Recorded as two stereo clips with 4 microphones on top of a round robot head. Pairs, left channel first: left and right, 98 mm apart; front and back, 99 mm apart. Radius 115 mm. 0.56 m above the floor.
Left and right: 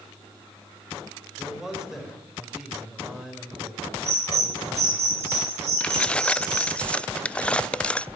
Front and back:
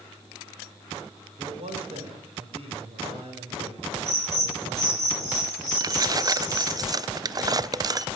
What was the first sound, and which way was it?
A man speaking, 175° right.